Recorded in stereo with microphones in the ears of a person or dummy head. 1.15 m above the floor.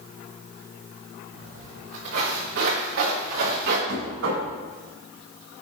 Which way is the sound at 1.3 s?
65° right (ahead or behind).